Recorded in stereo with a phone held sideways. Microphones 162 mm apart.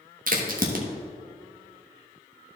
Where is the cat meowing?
I don't hear a cat meowing.